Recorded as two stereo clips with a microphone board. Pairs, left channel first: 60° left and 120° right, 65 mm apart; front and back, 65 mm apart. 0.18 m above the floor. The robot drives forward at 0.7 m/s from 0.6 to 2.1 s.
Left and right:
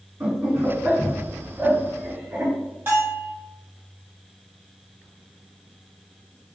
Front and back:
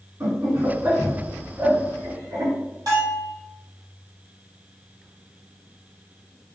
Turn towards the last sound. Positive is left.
turn(degrees=-175)